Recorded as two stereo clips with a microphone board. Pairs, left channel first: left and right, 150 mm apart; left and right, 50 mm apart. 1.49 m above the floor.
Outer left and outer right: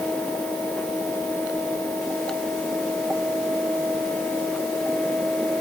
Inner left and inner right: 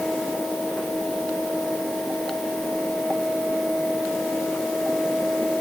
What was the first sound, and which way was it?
Only background noise.